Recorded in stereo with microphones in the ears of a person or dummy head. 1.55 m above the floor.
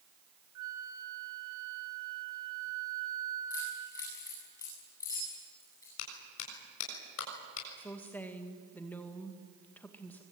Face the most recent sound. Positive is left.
turn(degrees=10)  # may be behind; listen again after turning